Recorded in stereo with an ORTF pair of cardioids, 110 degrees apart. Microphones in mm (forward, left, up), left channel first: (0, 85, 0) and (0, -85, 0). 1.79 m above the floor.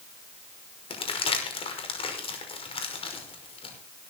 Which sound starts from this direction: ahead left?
Crumpling, at 0.9 s.